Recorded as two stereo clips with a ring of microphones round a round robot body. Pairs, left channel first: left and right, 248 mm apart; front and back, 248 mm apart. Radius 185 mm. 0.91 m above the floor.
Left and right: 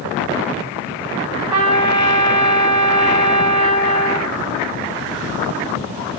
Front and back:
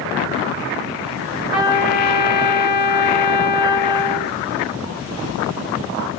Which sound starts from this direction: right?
A trumpet, at 1.5 s.